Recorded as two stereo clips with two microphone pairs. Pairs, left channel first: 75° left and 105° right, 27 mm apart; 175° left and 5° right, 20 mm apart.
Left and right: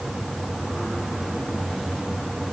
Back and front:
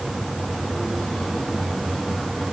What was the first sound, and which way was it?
Only background noise.